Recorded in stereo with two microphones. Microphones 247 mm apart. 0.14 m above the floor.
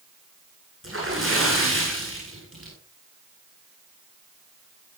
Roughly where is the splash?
Right.